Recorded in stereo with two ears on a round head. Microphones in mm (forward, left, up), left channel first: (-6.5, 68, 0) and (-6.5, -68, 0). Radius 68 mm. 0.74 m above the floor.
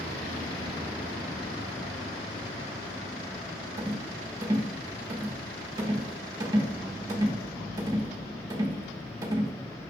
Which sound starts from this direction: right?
A rattle, at 3.8 s.